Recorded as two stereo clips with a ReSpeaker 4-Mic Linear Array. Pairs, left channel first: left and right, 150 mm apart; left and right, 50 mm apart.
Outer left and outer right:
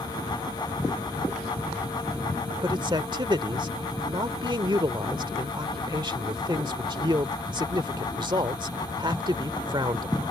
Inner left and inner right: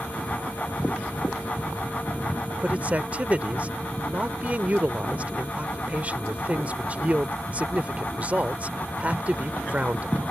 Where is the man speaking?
30° right (ahead or behind).